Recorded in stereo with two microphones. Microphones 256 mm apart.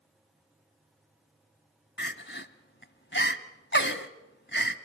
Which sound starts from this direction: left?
Crying, at 2.0 s.